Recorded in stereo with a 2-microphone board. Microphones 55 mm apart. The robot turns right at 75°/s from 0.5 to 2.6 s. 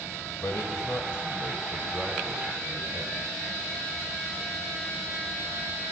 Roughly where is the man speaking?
Left.